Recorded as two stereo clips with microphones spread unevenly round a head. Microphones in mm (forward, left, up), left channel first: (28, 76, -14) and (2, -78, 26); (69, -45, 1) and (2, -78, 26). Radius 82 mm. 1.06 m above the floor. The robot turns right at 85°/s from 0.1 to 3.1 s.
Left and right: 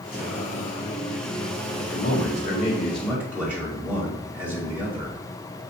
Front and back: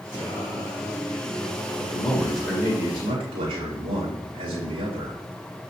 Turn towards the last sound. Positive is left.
turn(degrees=175)